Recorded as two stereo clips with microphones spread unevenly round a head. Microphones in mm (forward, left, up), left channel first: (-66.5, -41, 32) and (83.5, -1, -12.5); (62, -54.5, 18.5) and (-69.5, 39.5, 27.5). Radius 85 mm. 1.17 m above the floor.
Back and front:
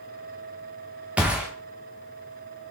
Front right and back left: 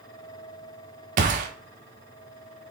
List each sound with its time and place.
1.2 s a gunshot: 100° left, 0.6 m